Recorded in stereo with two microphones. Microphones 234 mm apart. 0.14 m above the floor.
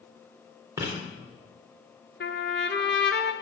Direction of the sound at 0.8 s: 15° right (ahead or behind).